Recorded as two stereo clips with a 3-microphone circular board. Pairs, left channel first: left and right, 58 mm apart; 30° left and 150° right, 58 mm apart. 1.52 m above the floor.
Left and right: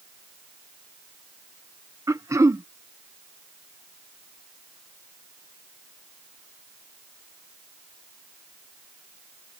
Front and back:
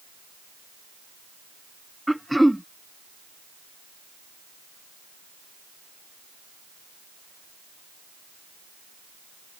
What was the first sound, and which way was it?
Throat clearing, 60° right.